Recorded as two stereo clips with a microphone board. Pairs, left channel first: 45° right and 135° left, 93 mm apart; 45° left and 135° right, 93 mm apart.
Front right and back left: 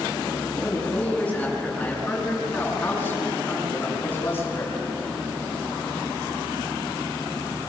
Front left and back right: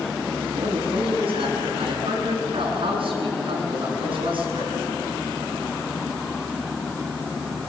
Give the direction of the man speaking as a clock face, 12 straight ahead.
4 o'clock.